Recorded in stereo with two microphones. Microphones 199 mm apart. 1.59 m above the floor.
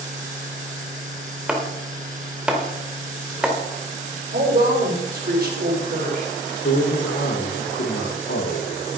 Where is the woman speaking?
50° right (ahead or behind), 5 m.